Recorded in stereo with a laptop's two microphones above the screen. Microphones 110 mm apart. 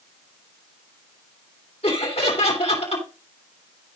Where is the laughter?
70° left (ahead or behind), 2.5 m.